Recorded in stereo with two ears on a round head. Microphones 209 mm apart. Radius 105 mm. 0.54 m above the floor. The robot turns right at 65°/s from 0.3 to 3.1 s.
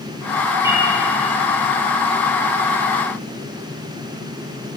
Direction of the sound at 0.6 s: 15° right (ahead or behind).